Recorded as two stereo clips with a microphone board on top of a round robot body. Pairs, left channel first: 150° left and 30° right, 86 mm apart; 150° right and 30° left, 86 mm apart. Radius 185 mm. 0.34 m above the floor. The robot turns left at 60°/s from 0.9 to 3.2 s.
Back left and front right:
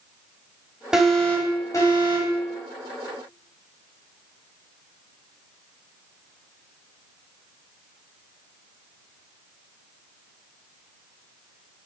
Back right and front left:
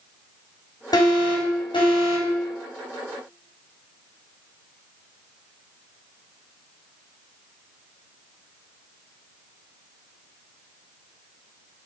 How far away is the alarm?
About 3.5 m.